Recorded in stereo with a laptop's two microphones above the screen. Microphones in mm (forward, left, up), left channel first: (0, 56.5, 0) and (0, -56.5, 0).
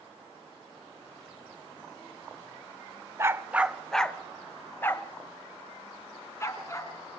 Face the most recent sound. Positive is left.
turn(degrees=25)  # may be behind; listen again after turning